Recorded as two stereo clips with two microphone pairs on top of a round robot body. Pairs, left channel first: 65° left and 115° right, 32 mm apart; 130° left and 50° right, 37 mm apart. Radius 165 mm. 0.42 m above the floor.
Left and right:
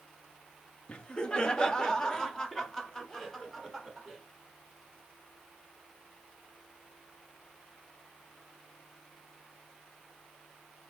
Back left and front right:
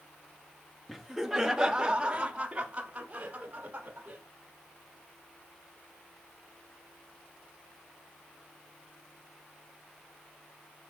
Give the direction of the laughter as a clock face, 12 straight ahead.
11 o'clock.